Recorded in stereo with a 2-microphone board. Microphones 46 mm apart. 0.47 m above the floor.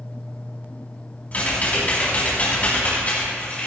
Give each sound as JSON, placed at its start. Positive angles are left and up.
{"t": 1.3, "sound": "typing on a keyboard", "side_deg": 35, "distance_m": 4.5}